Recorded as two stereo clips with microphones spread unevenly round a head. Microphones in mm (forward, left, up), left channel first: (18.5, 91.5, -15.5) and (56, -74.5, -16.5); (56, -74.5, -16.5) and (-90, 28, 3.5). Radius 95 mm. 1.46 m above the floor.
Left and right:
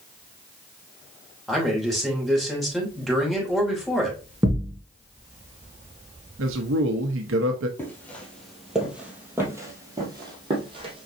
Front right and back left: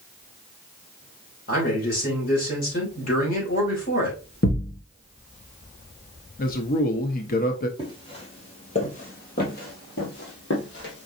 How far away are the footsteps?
About 2.0 m.